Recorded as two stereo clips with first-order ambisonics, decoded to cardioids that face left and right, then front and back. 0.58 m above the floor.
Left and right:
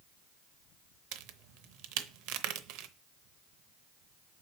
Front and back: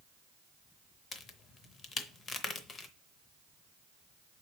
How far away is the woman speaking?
I don't hear a woman speaking.